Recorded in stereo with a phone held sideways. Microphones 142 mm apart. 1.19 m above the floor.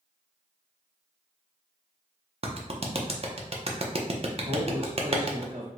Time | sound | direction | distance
2.4 | a clap | 45° right (ahead or behind) | 0.5 m
4.4 | a man speaking | 75° right (ahead or behind) | 1.3 m